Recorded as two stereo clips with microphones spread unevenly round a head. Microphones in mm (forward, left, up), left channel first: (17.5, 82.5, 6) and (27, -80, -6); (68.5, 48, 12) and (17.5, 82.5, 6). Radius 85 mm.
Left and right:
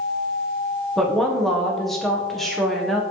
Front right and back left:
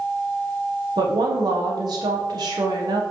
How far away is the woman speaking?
About 1.1 m.